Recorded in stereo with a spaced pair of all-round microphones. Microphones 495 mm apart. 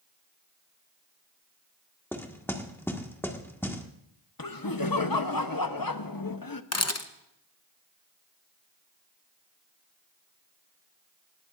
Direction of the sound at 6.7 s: 30° left (ahead or behind).